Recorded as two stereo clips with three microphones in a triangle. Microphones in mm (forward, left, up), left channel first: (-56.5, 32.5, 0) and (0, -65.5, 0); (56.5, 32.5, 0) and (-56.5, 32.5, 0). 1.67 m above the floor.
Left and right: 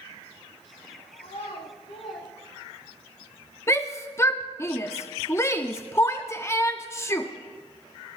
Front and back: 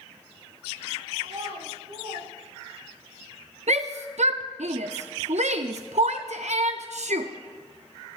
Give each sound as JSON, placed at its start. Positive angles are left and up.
{"t": 1.2, "sound": "a child speaking", "azimuth_deg": 145, "distance_m": 7.5}
{"t": 3.7, "sound": "a shout", "azimuth_deg": -170, "distance_m": 0.5}